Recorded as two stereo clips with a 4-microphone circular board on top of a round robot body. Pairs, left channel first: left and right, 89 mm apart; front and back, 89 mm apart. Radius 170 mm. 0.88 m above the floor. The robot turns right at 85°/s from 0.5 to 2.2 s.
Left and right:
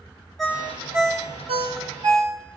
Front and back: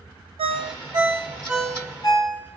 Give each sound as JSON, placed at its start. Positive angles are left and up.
{"t": 0.4, "sound": "a ringtone", "azimuth_deg": 180, "distance_m": 0.5}